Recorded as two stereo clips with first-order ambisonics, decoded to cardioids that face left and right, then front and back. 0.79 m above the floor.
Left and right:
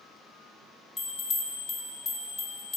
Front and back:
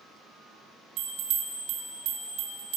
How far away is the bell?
About 1.4 m.